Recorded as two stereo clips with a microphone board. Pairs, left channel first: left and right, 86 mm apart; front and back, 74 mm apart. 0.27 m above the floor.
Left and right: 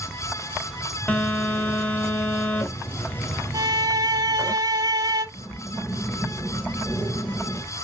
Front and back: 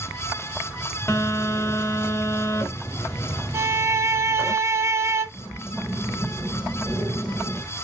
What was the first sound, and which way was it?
A phone buzzing, 30° left.